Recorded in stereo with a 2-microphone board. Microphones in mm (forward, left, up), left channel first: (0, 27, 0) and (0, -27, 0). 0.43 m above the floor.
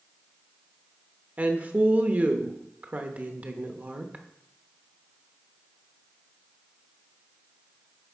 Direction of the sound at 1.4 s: 30° right (ahead or behind).